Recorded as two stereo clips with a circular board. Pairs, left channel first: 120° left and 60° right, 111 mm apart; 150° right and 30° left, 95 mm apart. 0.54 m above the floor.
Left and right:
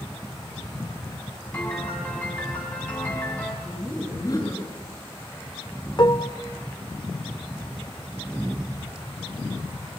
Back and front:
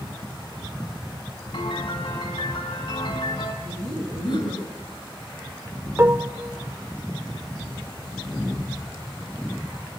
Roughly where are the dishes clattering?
Left.